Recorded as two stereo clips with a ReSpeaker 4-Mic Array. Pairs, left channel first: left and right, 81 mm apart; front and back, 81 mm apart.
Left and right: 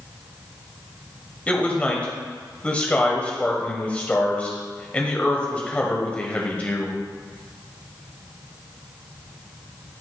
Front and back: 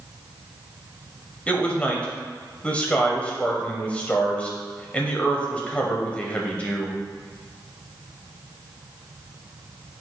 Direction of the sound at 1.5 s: 45° left.